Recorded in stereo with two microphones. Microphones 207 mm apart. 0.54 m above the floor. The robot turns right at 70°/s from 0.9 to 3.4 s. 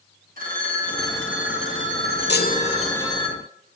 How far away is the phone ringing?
About 3.5 m.